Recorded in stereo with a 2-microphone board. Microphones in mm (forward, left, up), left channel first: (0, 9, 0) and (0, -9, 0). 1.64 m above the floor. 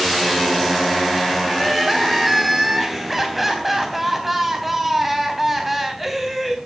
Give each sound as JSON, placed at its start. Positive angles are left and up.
{"t": 1.5, "sound": "crying", "side_deg": -5, "distance_m": 3.0}